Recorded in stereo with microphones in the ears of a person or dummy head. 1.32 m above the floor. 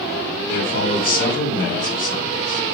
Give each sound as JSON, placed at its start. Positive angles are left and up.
{"t": 0.5, "sound": "a man speaking", "side_deg": 50, "distance_m": 4.0}